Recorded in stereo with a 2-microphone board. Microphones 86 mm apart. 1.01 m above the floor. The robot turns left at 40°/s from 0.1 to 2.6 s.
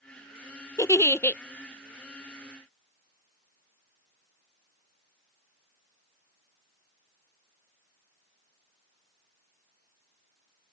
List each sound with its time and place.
0.8 s a giggle: 40° left (ahead or behind); by 1.4 s 20° left (ahead or behind)